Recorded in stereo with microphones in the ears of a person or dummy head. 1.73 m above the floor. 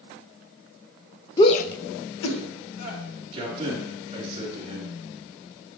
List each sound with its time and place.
1.4 s a shout: 20° left (ahead or behind), 0.6 m; by 3.0 s 75° left (ahead or behind), 1.8 m
3.3 s a man speaking: 30° right (ahead or behind), 3.5 m